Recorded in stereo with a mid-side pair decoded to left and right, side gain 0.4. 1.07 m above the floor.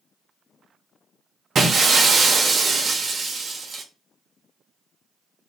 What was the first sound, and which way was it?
Breaking glass, 50° right.